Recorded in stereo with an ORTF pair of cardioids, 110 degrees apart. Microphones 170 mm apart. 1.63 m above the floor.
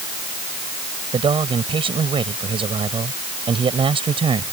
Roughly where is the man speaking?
Ahead right.